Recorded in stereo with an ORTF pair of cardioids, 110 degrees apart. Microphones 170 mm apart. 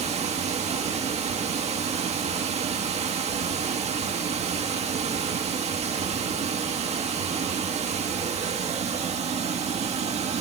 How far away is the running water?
About 1.7 m.